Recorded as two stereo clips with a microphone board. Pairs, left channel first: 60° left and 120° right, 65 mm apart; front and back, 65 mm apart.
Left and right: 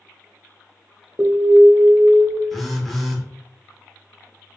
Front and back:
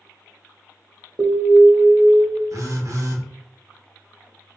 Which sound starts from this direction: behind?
An alarm, at 1.2 s.